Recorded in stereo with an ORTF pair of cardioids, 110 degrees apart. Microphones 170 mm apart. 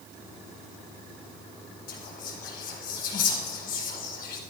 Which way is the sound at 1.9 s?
65° left.